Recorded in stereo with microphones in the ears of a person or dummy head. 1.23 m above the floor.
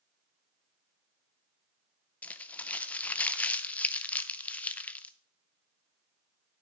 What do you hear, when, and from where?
2.2 s crumpling: 15° left (ahead or behind), 0.5 m